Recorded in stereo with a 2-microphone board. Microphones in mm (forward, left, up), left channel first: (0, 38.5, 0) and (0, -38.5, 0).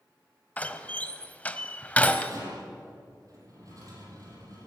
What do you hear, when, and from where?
0.6 s a door slam: 15° left (ahead or behind), 1.2 m
2.3 s a rattle: 45° right (ahead or behind), 7 m